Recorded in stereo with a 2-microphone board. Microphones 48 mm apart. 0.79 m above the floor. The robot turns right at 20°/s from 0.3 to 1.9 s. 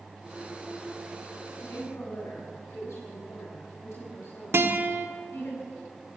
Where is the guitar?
60° right (ahead or behind), 1.2 m.